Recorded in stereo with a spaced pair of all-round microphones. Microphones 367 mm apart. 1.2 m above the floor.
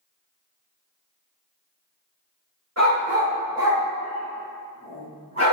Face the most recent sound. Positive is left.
turn(degrees=20)  # may be behind; listen again after turning